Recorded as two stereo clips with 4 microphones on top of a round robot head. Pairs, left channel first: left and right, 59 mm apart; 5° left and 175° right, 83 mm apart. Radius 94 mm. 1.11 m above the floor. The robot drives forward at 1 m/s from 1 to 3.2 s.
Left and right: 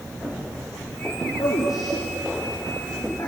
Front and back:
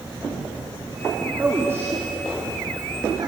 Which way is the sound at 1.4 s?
115° left.